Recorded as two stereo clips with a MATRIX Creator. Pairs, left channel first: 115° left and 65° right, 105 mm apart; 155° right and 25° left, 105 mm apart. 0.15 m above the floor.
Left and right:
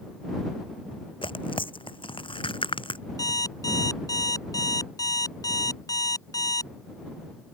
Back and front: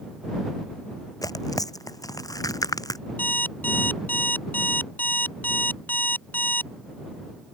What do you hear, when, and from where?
1.2 s tearing paper: 150° left
3.2 s an alarm clock: 140° left